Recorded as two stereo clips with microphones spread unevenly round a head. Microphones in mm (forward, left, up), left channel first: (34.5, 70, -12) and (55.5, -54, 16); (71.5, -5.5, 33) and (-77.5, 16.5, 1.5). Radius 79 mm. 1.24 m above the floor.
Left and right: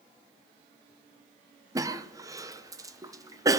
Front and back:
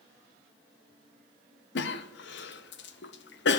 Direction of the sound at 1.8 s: 10° right.